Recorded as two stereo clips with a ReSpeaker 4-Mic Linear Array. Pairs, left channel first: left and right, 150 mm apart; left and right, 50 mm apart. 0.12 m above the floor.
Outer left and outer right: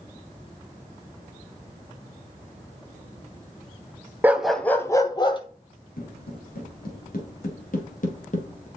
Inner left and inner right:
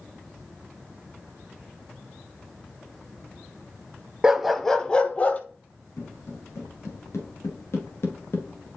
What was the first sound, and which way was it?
A dog barking, 15° right (ahead or behind).